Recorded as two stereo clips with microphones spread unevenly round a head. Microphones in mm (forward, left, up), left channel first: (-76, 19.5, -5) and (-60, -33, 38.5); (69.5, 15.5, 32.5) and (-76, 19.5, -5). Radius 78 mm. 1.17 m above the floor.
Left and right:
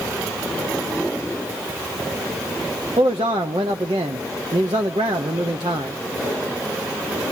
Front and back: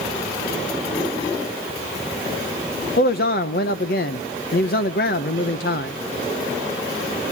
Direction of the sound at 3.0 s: 35° right.